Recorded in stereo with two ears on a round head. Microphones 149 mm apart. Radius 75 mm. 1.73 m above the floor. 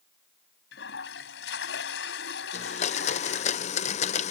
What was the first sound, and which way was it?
A toilet flushing, 80° left.